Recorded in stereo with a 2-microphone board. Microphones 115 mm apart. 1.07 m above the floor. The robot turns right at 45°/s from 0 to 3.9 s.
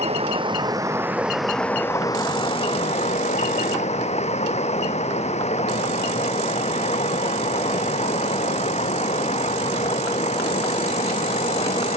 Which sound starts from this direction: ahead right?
Running water, at 0.0 s.